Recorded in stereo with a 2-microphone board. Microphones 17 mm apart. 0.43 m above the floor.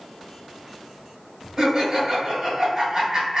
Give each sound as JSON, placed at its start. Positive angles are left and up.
{"t": 1.6, "sound": "laughter", "side_deg": -20, "distance_m": 1.3}